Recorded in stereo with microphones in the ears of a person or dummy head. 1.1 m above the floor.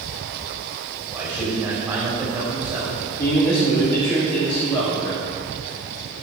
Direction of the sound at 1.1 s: 15° right (ahead or behind).